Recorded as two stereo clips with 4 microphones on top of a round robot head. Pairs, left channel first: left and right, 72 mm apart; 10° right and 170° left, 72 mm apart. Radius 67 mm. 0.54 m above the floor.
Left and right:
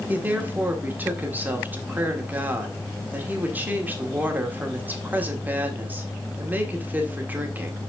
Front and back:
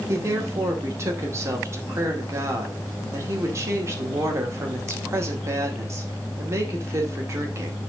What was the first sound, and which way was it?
A woman speaking, 150° right.